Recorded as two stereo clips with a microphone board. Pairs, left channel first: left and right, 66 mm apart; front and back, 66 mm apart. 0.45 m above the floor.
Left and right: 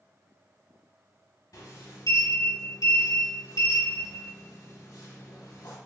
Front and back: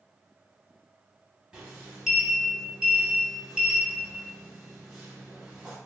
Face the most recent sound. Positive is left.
turn(degrees=105)